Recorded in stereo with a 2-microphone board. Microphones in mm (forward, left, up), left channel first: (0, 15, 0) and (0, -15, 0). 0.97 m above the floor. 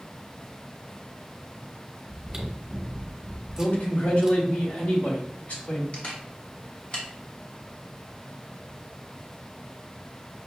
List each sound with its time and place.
2.1 s chewing: 25° right (ahead or behind), 1.0 m
3.6 s a man speaking: 60° left (ahead or behind), 2.0 m
5.9 s a camera shutter: 40° left (ahead or behind), 1.5 m